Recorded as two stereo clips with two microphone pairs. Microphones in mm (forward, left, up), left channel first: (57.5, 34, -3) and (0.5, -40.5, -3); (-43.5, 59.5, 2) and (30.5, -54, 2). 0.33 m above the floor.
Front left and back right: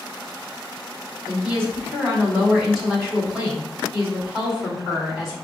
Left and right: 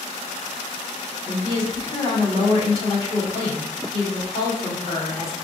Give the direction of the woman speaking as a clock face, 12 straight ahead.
7 o'clock.